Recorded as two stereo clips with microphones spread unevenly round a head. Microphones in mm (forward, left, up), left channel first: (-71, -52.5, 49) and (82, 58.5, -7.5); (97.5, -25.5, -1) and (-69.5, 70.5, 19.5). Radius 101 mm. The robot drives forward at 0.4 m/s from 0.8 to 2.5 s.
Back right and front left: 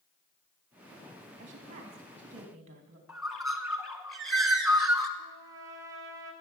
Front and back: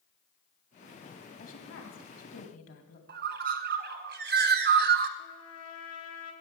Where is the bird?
135° left, 0.9 m.